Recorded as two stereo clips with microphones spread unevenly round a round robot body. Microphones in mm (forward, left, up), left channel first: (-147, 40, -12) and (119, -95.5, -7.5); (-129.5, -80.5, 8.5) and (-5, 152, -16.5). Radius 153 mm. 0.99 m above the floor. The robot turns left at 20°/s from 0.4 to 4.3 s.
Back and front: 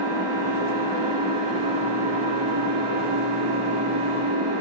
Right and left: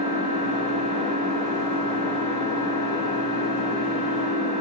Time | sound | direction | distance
0.0 | an engine running | straight ahead | 6.5 m